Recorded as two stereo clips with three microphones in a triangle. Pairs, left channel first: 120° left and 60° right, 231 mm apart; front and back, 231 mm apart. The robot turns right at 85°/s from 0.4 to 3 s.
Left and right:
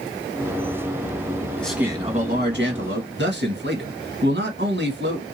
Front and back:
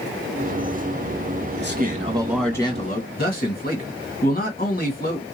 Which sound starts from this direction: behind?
A man speaking, at 1.6 s.